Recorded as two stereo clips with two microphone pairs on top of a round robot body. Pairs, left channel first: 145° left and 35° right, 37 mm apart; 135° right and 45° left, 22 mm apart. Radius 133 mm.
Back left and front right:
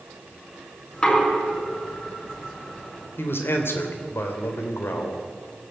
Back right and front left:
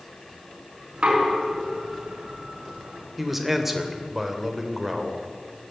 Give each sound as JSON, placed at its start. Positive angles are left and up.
{"t": 0.9, "sound": "knocking", "azimuth_deg": 85, "distance_m": 5.5}
{"t": 3.2, "sound": "a man speaking", "azimuth_deg": 130, "distance_m": 3.0}